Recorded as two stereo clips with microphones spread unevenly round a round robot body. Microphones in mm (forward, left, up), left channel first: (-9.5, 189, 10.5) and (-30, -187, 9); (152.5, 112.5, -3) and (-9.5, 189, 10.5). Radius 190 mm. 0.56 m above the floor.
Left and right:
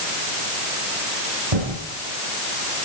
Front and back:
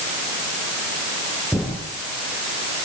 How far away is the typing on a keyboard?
About 9.5 m.